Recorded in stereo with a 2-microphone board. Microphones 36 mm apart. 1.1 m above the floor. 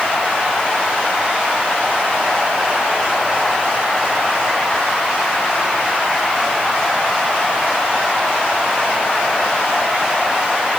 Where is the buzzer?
I don't hear a buzzer.